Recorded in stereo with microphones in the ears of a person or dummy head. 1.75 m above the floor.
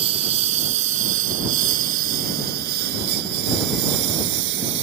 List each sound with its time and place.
0.0 s a lawn mower: 35° right (ahead or behind); by 4.8 s 70° right (ahead or behind)